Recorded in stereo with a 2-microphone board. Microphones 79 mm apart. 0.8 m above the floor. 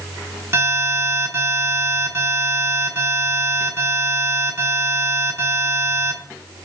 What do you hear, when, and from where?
0.5 s an alarm: 35° right (ahead or behind), 9.5 m